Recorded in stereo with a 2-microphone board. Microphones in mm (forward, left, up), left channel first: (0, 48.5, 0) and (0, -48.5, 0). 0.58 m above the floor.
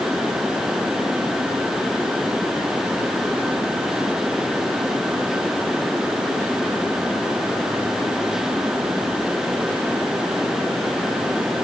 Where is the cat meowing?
I don't hear a cat meowing.